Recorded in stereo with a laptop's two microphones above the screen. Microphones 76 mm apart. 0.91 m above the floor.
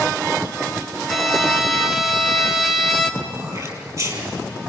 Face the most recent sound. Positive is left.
turn(degrees=-45)  # may be behind; listen again after turning